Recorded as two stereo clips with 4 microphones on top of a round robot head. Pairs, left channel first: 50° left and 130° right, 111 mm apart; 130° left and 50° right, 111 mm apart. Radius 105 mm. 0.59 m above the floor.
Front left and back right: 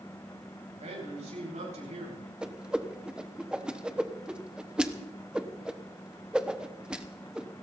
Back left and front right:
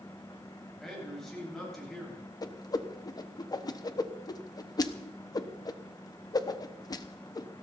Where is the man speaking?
145° right, 8 m.